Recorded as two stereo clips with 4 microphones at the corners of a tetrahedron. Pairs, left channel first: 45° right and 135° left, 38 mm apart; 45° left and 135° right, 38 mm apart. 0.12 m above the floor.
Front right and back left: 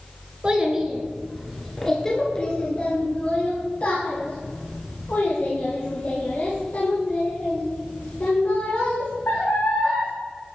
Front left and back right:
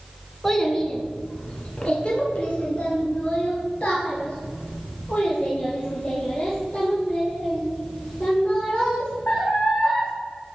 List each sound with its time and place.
0.4 s a child speaking: 115° left, 1.1 m; by 10.1 s 10° right, 5 m